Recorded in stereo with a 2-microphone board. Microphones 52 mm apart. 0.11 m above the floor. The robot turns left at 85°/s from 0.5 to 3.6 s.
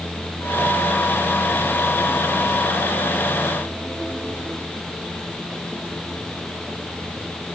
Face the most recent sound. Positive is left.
No sound to turn to.